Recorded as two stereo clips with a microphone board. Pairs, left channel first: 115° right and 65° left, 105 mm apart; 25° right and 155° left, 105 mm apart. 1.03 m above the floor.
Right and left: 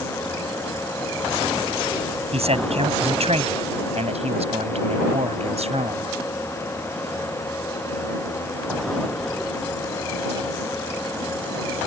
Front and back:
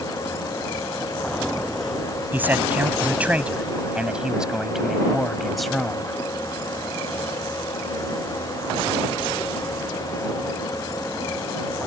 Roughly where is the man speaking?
Left.